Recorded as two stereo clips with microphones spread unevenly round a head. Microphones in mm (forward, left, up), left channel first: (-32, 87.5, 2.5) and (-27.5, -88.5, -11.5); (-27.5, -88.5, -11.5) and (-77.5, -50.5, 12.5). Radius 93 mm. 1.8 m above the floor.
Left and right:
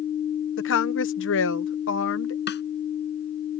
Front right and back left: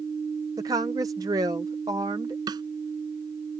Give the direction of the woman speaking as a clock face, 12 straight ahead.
9 o'clock.